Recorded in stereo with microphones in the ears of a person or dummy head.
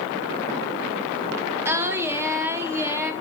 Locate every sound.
1.6 s singing: 15° right (ahead or behind), 0.6 m